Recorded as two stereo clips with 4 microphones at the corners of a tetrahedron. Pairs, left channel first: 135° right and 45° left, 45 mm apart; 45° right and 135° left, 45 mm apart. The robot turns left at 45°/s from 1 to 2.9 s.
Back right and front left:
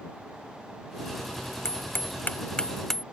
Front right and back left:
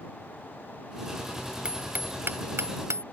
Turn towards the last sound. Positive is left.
turn(degrees=140)